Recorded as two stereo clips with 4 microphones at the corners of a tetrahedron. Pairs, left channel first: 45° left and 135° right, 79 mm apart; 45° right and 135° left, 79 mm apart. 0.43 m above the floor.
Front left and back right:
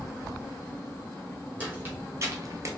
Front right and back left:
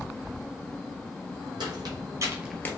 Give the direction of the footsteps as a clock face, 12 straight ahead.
7 o'clock.